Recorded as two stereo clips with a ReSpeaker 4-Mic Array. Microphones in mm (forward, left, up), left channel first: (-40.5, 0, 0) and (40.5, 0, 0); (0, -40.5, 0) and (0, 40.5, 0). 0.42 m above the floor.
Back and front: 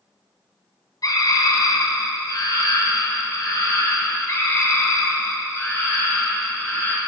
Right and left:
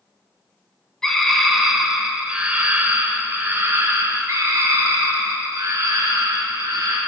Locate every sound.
1.0 s a scream: 170° right, 1.9 m; by 7.0 s 120° left, 3.5 m